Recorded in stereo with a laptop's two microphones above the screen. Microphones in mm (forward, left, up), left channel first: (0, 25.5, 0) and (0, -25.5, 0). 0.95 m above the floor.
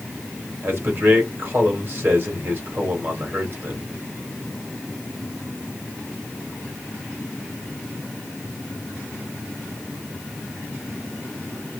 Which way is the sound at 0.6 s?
45° right (ahead or behind).